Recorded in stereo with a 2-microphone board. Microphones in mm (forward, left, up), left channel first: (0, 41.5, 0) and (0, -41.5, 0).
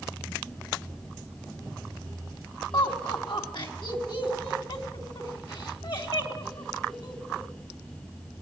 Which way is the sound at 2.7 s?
70° left (ahead or behind).